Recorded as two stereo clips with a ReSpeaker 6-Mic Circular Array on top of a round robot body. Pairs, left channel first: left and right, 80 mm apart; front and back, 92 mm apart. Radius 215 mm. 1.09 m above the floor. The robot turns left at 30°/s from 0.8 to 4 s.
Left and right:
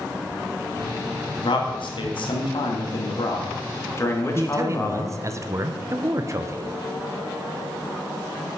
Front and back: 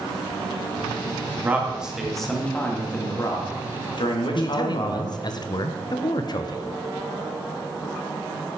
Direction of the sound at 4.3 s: 40° right.